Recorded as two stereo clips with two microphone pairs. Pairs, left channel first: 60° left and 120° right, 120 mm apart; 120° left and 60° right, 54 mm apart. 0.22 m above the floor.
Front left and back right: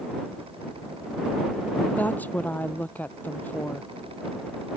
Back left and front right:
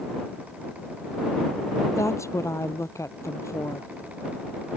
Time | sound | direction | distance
1.9 | a woman speaking | 135° left | ?